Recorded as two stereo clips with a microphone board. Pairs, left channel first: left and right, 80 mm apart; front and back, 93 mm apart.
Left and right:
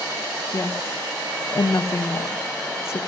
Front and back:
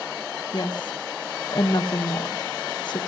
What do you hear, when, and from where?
0.5 s a woman speaking: 35° left, 1.9 m